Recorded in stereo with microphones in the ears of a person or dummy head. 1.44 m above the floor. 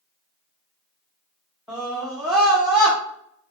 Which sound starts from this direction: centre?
A scream, at 1.7 s.